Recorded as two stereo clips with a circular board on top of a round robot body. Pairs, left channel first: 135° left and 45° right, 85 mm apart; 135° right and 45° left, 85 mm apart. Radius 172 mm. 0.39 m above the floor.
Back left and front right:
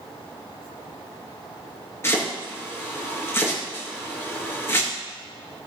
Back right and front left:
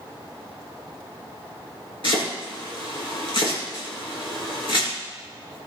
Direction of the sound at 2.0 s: 165° right.